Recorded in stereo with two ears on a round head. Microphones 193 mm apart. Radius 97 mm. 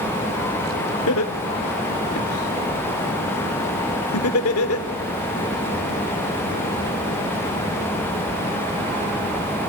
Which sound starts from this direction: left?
Laughter, at 1.1 s.